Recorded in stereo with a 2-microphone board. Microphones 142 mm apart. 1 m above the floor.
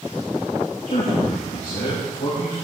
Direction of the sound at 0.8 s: 85° left.